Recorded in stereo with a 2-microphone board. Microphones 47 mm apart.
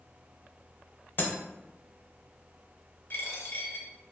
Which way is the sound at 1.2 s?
50° left (ahead or behind).